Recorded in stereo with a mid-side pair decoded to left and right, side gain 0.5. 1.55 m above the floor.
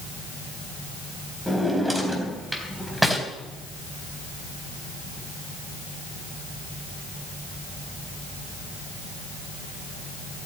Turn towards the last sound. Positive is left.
turn(degrees=0)